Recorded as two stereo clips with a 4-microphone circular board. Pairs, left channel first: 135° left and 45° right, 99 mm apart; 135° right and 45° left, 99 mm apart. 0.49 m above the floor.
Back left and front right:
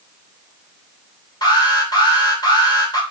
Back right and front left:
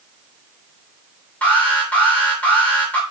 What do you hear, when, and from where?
1.4 s an alarm: 155° left, 2.5 m